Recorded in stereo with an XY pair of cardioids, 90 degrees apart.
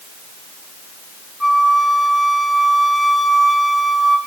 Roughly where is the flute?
Ahead.